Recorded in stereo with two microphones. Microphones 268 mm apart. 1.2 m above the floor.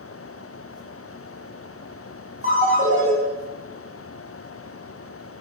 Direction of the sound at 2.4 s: 30° right (ahead or behind).